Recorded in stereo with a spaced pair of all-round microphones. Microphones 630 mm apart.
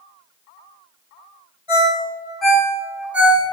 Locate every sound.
1.7 s a ringtone: 50° left (ahead or behind), 1.5 m